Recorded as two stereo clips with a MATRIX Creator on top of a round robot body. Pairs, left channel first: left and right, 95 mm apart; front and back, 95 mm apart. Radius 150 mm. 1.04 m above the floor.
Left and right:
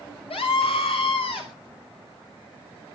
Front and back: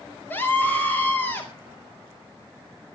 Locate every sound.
0.3 s a scream: 70° left, 5.5 m